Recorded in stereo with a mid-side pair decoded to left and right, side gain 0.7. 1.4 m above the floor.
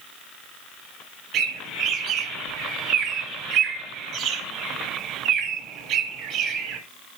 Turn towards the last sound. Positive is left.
turn(degrees=-55)